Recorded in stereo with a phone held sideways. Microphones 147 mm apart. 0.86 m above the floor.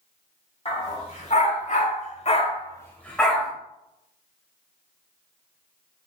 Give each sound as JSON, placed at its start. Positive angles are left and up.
{"t": 0.7, "sound": "a dog barking", "side_deg": 45, "distance_m": 1.7}